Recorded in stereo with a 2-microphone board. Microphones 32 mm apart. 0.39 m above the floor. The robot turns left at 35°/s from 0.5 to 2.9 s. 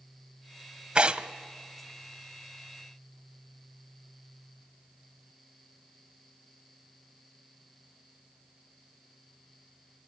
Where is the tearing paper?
30° right (ahead or behind), 0.6 m; by 1.3 s 45° right (ahead or behind), 0.6 m.